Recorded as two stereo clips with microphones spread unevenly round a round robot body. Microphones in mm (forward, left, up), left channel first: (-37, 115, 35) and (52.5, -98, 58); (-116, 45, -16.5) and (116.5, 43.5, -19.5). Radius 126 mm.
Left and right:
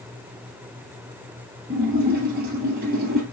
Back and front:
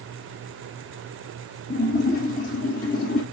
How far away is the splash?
About 2 m.